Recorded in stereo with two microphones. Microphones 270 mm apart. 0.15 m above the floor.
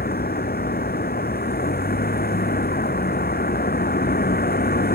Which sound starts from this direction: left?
A vehicle, at 0.0 s.